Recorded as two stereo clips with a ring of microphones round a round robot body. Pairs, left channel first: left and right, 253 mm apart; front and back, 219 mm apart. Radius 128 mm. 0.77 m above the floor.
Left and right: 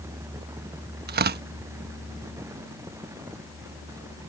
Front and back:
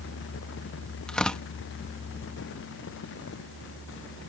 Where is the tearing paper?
85° right.